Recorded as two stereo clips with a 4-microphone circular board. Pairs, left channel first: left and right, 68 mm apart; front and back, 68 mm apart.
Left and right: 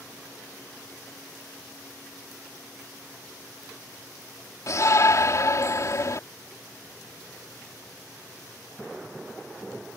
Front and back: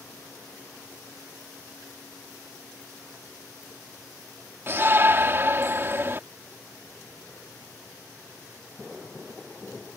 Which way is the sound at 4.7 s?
130° left.